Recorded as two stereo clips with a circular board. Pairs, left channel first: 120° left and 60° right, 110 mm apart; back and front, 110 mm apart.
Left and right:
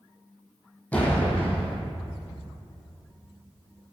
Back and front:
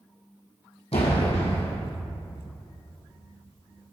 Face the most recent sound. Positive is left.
turn(degrees=-165)